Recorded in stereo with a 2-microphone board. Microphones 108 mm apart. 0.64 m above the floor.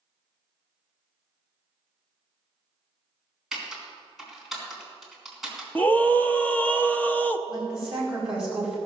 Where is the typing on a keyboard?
5° right (ahead or behind), 3.5 m.